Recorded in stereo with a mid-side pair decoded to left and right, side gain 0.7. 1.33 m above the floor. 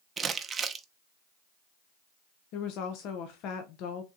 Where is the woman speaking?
60° left, 0.8 m.